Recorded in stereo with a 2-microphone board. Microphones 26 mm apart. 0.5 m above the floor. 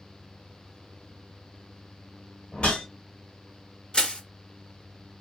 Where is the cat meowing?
I don't hear a cat meowing.